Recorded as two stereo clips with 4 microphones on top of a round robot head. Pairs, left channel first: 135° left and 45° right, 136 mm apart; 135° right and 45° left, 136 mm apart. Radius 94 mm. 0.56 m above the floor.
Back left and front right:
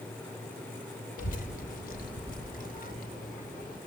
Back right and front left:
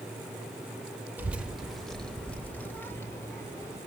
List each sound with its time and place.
1.2 s a child speaking: 120° left, 2 m; by 3.8 s 155° left, 4 m